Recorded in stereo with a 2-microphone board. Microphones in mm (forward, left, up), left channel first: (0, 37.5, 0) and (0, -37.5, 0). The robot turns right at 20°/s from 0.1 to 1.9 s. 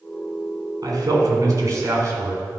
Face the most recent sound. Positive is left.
turn(degrees=-45)  # may be behind; listen again after turning